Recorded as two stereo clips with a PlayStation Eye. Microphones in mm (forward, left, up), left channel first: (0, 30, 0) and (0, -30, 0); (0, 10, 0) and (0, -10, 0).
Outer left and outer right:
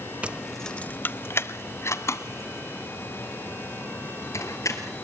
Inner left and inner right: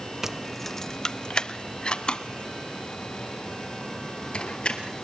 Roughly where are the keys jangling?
Right.